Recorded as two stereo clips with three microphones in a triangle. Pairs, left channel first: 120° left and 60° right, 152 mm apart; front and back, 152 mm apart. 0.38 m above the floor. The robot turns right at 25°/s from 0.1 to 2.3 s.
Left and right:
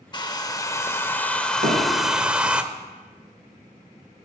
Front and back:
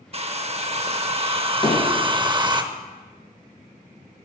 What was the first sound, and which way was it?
A hair dryer, 165° left.